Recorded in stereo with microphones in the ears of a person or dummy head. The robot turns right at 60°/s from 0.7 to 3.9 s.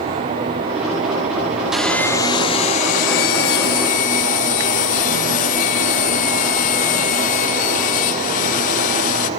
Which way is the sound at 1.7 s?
5° right.